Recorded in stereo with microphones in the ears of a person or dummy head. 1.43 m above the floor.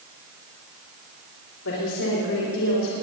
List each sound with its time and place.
1.6 s a woman speaking: 85° left, 3.5 m